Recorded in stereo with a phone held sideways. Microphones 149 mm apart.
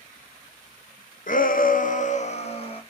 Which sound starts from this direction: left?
A shout, at 1.3 s.